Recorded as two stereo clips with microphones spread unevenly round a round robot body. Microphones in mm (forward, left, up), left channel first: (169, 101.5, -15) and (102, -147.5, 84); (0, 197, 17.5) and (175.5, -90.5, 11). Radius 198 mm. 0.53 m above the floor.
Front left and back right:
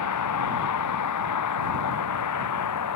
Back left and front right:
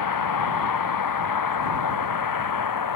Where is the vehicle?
95° left.